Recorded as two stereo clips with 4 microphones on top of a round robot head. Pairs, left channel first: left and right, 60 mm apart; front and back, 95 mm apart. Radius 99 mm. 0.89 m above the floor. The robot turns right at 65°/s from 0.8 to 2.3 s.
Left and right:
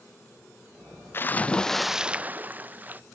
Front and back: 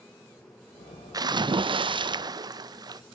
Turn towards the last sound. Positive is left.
turn(degrees=-150)